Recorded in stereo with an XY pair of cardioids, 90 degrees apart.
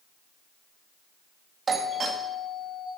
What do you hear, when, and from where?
1.7 s a doorbell: 50° right, 2 m